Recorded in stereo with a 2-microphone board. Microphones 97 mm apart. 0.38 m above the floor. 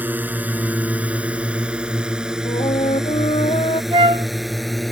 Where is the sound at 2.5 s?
85° left.